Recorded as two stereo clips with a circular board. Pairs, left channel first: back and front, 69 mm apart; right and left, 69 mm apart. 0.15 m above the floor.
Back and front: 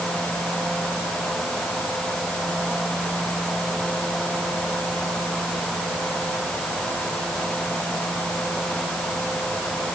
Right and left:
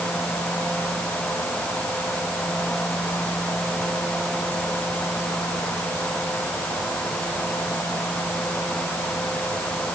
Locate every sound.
Only background noise.